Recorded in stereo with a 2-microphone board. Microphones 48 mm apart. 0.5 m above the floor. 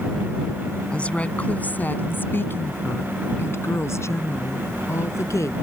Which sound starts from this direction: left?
A woman speaking, at 0.9 s.